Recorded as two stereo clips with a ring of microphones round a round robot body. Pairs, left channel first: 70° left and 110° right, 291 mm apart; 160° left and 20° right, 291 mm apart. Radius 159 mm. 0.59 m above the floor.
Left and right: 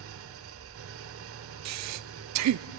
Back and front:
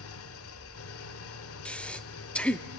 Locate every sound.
0.0 s an engine running: 160° right, 1.0 m
1.6 s breathing: 115° right, 0.6 m